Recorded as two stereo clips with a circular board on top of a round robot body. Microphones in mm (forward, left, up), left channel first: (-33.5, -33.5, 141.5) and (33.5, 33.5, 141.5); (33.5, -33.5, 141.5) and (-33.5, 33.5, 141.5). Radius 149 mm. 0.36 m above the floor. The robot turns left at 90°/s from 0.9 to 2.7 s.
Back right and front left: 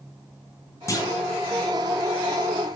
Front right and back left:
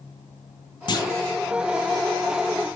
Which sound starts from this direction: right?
A clunk, at 0.9 s.